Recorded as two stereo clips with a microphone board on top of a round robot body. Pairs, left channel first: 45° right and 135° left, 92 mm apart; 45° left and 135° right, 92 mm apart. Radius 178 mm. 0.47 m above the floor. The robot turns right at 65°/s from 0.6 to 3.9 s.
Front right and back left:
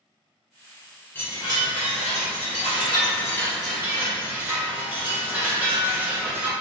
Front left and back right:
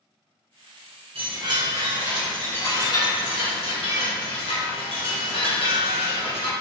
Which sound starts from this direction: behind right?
A chime, at 1.1 s.